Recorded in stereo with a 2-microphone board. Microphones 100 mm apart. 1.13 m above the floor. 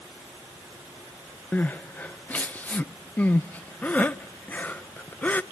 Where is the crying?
15° left (ahead or behind), 0.5 m.